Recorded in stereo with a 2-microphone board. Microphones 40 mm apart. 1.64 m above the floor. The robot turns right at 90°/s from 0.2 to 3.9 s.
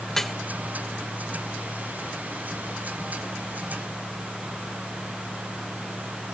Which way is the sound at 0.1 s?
10° left (ahead or behind).